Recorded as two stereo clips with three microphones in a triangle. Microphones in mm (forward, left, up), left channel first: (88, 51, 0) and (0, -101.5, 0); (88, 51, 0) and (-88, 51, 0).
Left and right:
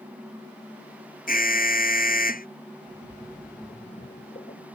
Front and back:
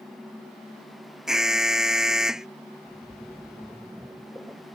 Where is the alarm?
95° left.